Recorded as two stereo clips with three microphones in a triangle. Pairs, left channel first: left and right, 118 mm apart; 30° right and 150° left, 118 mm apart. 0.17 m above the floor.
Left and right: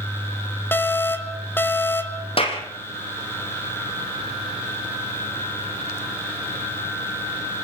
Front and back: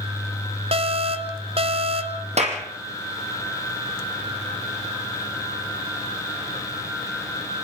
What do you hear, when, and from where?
0.7 s an alarm: 160° left, 1.3 m
2.4 s a clap: 130° left, 4 m